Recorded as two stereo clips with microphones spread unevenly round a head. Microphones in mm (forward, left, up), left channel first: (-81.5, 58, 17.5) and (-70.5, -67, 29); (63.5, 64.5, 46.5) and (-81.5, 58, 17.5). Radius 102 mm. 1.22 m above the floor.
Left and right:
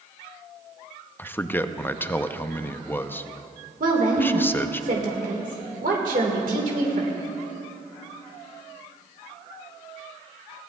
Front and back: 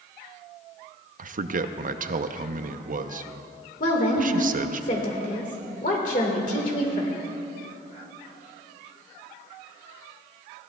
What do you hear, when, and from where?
1.2 s a man speaking: 170° left, 0.6 m
3.8 s a woman speaking: 45° right, 1.7 m